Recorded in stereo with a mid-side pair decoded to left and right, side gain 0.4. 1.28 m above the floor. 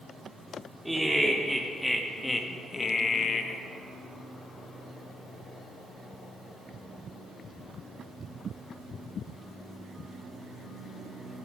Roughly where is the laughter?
Ahead.